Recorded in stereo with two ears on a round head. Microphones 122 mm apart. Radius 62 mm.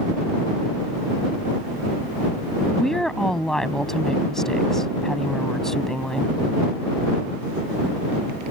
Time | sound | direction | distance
2.7 | a woman speaking | 5° left (ahead or behind) | ?